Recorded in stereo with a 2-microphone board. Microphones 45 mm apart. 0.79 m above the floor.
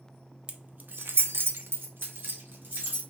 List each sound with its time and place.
0.5 s keys jangling: 25° right (ahead or behind), 0.6 m; by 3.0 s 50° right (ahead or behind), 1.6 m